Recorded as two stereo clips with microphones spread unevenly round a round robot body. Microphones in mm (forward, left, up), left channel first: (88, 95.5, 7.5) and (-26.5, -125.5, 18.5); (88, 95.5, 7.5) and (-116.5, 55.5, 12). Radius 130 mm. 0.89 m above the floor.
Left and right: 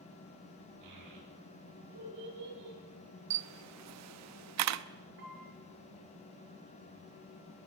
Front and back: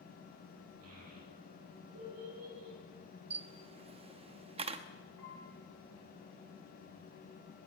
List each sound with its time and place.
0.8 s a child speaking: 140° right, 8.5 m; by 2.8 s 145° right, 8.5 m
3.3 s a camera shutter: 100° right, 0.9 m
5.2 s a piano: 70° right, 7.5 m